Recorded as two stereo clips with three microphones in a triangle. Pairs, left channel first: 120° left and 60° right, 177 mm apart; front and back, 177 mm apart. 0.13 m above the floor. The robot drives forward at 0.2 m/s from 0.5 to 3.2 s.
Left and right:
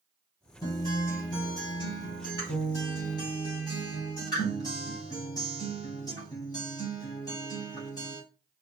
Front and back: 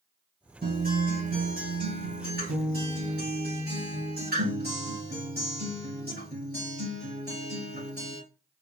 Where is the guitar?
175° right, 3 m.